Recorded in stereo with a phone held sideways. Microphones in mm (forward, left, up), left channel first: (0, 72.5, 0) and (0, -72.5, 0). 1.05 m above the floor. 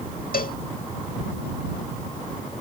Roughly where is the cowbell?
Left.